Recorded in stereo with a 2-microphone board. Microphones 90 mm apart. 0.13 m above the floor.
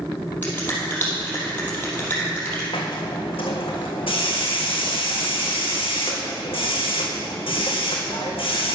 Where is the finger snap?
20° left (ahead or behind), 3.5 m.